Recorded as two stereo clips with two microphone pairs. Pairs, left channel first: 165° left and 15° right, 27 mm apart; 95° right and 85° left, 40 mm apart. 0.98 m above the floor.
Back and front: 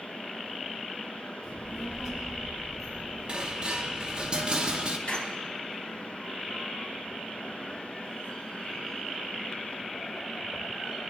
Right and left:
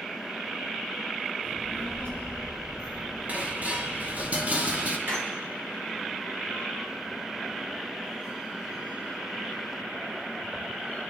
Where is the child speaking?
70° left, 5 m; by 4.3 s 55° left, 7.5 m.